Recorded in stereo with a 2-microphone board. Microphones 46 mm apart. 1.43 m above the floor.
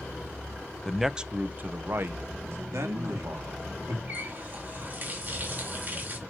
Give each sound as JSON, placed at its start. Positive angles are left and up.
{"t": 0.8, "sound": "a man speaking", "side_deg": 5, "distance_m": 0.7}
{"t": 2.7, "sound": "a man speaking", "side_deg": -75, "distance_m": 3.0}
{"t": 4.1, "sound": "a running tap", "side_deg": -40, "distance_m": 1.8}